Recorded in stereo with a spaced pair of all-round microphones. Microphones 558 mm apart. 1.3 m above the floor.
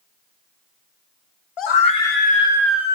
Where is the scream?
60° left (ahead or behind), 0.5 m; by 3.0 s 5° right (ahead or behind), 1.0 m.